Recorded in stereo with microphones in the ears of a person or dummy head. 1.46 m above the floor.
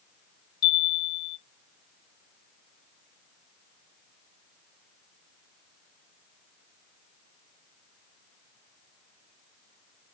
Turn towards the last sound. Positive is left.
turn(degrees=55)  # may be behind; listen again after turning